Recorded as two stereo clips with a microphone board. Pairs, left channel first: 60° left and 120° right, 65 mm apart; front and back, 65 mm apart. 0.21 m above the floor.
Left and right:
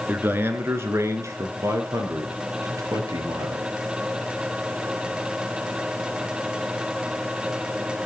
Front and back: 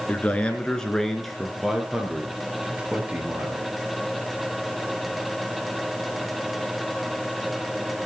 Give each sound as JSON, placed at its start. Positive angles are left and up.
{"t": 0.1, "sound": "a man speaking", "azimuth_deg": -65, "distance_m": 3.0}